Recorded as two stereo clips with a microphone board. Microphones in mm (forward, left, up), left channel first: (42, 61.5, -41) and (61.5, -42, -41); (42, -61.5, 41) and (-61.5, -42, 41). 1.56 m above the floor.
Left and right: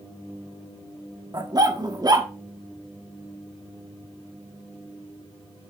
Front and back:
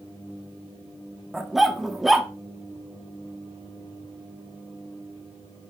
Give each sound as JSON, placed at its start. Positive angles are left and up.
{"t": 1.3, "sound": "a dog barking", "azimuth_deg": -105, "distance_m": 1.3}